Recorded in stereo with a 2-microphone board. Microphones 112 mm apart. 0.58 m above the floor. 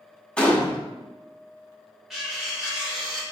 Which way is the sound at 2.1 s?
5° right (ahead or behind).